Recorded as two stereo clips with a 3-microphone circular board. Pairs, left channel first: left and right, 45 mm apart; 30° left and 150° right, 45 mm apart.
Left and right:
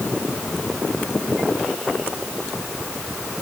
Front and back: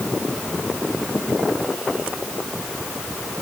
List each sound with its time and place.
Only background noise.